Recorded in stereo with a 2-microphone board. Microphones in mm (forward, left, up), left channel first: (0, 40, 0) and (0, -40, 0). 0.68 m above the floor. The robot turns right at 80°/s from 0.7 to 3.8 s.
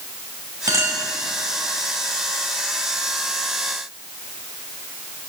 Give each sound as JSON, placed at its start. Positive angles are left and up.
{"t": 0.7, "sound": "a clink", "side_deg": -45, "distance_m": 2.5}